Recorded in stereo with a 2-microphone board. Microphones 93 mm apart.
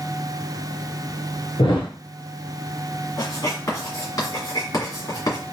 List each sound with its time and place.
1.6 s a thud: 65° left (ahead or behind), 1.5 m
3.2 s writing: 40° left (ahead or behind), 2 m